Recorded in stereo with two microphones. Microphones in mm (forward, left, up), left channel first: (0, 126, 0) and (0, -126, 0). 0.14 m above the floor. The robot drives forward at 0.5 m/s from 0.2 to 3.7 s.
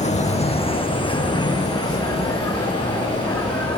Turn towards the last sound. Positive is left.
turn(degrees=10)  # may be behind; listen again after turning